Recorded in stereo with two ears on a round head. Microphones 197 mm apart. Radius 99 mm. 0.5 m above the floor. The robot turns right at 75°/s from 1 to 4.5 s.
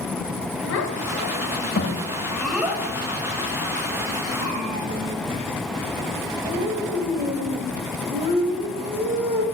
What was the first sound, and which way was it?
A child speaking, 60° left (ahead or behind).